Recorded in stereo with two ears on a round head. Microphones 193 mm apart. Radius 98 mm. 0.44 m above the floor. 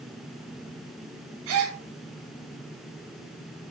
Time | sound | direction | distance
1.5 | a gasp | 70° right (ahead or behind) | 2.5 m